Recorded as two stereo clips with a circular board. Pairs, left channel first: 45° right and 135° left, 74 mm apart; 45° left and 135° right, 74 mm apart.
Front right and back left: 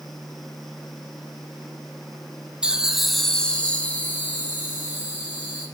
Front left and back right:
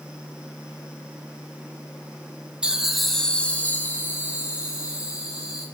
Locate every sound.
2.6 s laughter: 175° left, 1.0 m; by 5.7 s 5° left, 2.5 m